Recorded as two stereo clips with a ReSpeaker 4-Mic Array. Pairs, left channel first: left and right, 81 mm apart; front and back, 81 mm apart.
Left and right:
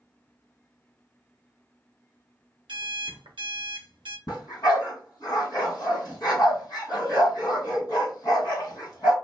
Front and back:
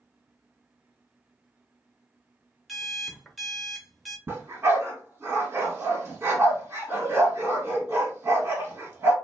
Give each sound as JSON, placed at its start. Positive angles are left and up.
{"t": 2.7, "sound": "an alarm clock", "azimuth_deg": -90, "distance_m": 0.7}
{"t": 4.3, "sound": "a dog barking", "azimuth_deg": 120, "distance_m": 1.8}